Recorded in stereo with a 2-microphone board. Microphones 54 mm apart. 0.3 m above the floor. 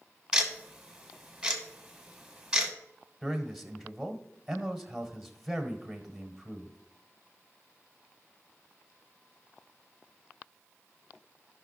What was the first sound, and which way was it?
Ticking, 10° right (ahead or behind).